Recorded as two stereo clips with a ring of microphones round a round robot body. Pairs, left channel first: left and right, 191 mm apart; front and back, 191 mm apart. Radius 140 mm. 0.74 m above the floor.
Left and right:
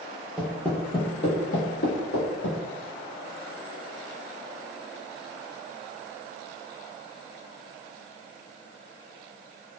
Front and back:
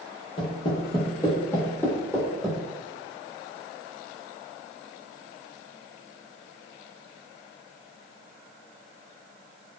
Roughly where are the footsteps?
Ahead.